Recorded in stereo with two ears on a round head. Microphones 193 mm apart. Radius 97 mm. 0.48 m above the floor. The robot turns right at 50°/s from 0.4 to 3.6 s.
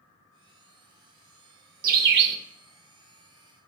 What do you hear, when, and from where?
1.8 s a bird: 40° right (ahead or behind), 0.6 m; by 2.4 s 50° right (ahead or behind), 0.6 m